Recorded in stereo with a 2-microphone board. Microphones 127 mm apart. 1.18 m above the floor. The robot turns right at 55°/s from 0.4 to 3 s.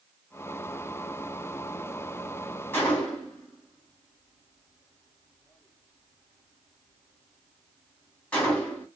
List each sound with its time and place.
2.7 s a gunshot: 20° left (ahead or behind), 1.2 m; by 8.9 s 10° left (ahead or behind), 1.2 m